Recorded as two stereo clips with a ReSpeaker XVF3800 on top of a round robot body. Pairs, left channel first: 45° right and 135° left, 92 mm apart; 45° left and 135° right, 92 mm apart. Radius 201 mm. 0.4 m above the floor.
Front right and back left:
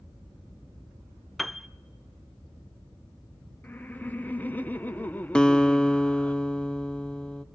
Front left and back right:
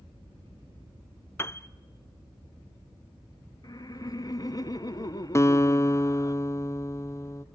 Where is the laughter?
20° left, 1.2 m.